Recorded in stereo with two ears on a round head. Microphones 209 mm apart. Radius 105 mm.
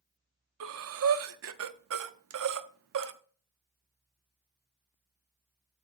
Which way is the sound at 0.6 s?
65° right (ahead or behind).